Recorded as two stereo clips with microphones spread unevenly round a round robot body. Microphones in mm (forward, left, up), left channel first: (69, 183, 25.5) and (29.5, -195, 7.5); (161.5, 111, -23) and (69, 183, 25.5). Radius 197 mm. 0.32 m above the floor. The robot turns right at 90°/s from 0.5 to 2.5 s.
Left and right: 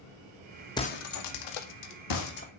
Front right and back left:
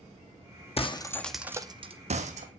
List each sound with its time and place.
0.8 s breaking glass: 5° left, 1.8 m; by 2.5 s 160° left, 1.8 m